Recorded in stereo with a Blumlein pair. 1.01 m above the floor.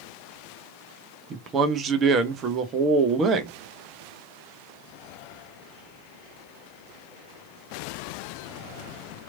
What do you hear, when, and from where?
1.3 s a man speaking: 25° right, 0.6 m